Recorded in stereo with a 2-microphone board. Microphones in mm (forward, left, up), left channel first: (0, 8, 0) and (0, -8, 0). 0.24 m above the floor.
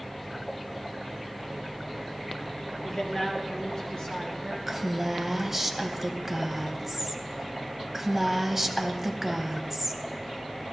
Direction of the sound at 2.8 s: 40° left (ahead or behind).